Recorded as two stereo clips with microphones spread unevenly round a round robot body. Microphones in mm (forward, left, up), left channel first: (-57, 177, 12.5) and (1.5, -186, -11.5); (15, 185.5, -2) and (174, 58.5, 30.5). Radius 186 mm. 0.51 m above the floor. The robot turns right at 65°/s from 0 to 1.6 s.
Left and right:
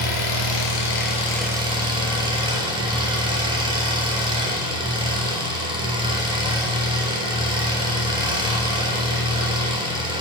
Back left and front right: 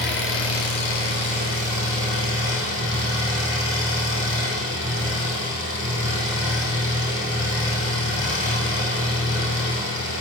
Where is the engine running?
95° left, 2.5 m; by 10.2 s 160° right, 2.5 m.